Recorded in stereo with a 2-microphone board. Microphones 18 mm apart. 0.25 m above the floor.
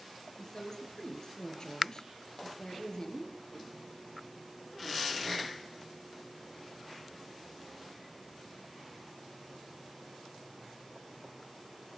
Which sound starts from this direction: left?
A woman speaking, at 0.4 s.